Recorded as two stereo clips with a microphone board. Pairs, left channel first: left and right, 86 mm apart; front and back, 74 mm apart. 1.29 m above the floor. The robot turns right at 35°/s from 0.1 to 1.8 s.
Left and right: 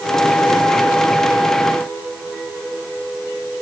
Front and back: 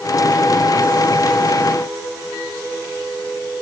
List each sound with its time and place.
Only background noise.